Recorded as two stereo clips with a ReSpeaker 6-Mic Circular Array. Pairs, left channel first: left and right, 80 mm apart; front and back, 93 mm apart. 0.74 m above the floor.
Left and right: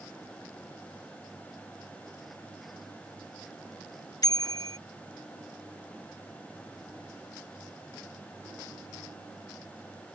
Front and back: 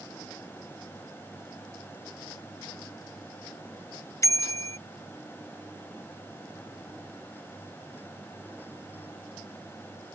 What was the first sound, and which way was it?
A bicycle bell, 55° left.